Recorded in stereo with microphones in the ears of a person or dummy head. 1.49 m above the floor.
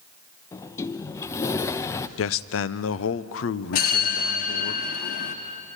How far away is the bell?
About 1.5 m.